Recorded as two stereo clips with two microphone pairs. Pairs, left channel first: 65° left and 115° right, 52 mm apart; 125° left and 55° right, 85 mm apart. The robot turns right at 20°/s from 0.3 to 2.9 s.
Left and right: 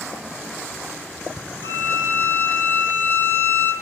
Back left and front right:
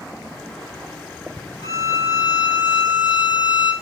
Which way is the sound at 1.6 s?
85° left.